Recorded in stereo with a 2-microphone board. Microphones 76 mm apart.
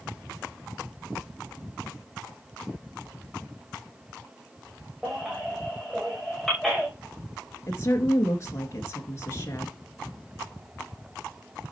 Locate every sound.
5.0 s a baby crying: centre (ahead or behind), 6 m
7.7 s a woman speaking: 35° left (ahead or behind), 2 m